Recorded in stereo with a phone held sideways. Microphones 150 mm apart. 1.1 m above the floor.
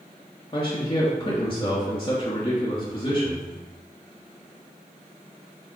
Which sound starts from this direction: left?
A man speaking, at 0.5 s.